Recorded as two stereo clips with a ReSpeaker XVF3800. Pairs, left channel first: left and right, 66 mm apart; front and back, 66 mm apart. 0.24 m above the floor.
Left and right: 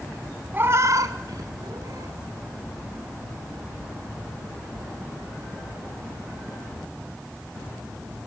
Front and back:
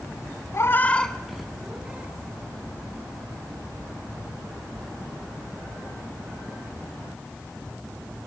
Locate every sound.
0.5 s a cat meowing: 35° right, 0.7 m; by 2.2 s 110° right, 1.9 m